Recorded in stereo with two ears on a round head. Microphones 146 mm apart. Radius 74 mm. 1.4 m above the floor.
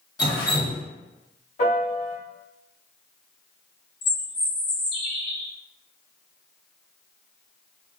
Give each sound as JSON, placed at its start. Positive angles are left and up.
{"t": 0.2, "sound": "dripping", "side_deg": 25, "distance_m": 0.8}
{"t": 1.6, "sound": "a piano", "side_deg": 40, "distance_m": 1.0}
{"t": 4.0, "sound": "a bird", "side_deg": 40, "distance_m": 1.6}